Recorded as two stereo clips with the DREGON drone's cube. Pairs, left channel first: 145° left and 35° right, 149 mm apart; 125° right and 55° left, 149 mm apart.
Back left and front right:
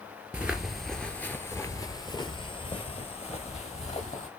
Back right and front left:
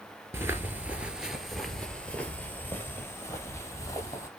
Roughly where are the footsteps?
Ahead left.